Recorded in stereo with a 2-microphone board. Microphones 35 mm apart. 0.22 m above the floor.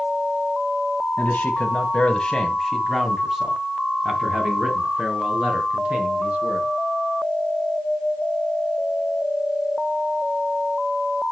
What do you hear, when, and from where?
1.2 s a man speaking: 40° left (ahead or behind), 1.3 m; by 6.7 s 40° right (ahead or behind), 3 m